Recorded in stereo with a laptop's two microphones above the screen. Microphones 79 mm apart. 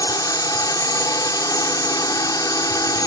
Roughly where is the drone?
Left.